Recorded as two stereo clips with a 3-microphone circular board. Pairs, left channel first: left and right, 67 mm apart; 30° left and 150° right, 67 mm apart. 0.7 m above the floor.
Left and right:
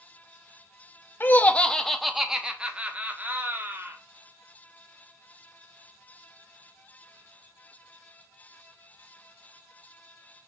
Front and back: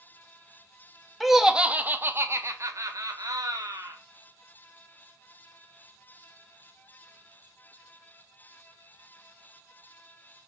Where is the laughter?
120° left, 0.9 m; by 4.0 s 145° right, 1.9 m.